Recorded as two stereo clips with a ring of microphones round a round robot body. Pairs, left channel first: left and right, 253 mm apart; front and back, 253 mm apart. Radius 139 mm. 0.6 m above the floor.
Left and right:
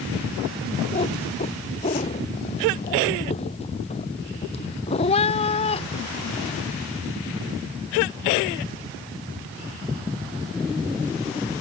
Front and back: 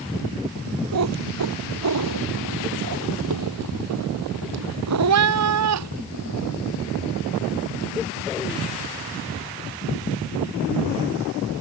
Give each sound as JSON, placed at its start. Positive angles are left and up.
{"t": 0.9, "sound": "a cat meowing", "azimuth_deg": 160}